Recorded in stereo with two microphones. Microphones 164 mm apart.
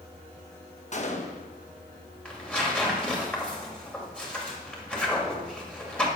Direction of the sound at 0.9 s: 45° left (ahead or behind).